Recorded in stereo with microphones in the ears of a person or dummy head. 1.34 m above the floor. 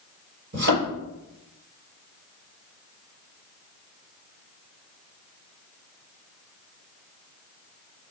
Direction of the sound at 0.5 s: 65° right (ahead or behind).